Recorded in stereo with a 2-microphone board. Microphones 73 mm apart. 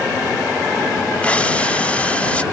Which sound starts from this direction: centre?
Breathing, at 1.2 s.